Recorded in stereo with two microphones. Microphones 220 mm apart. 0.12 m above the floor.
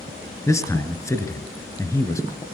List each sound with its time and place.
0.5 s a man speaking: 15° left (ahead or behind), 1.3 m